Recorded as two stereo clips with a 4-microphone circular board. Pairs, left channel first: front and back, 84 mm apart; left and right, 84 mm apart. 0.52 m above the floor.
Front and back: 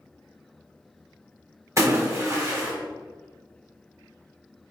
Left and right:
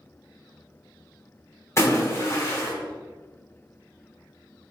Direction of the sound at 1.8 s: 135° left.